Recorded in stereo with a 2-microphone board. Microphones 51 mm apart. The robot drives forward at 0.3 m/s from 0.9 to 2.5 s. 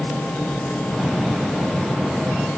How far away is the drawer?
No drawer in this recording.